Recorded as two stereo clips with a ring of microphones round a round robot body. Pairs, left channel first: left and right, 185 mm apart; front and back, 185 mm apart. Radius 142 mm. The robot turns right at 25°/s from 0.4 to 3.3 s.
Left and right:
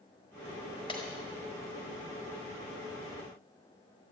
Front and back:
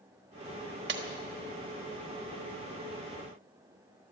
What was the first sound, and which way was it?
Breaking glass, 160° left.